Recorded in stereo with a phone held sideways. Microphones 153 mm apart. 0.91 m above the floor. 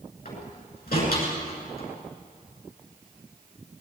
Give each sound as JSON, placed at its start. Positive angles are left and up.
{"t": 0.2, "sound": "a door slam", "side_deg": 80, "distance_m": 9.0}